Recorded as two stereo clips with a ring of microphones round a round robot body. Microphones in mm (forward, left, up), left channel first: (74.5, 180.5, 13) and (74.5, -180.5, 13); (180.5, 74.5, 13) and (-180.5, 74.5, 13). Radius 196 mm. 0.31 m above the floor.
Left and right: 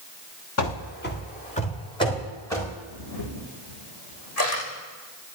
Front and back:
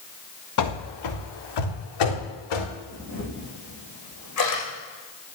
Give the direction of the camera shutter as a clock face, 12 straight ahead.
11 o'clock.